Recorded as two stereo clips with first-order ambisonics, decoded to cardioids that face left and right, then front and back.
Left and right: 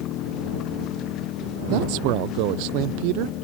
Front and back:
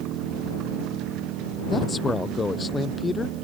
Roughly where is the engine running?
Behind left.